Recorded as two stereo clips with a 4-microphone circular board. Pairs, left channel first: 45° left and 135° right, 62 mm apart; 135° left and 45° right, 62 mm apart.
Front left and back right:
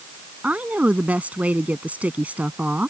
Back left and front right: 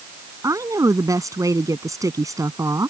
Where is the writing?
I don't hear writing.